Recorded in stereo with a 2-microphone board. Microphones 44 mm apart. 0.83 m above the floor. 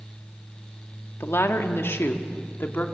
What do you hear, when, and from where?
1.2 s a woman speaking: 65° left (ahead or behind), 1.6 m; by 2.9 s 55° left (ahead or behind), 2.0 m